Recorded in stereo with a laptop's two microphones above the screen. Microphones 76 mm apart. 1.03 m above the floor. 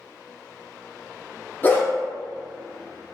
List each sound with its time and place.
1.6 s a dog barking: 25° left (ahead or behind), 0.6 m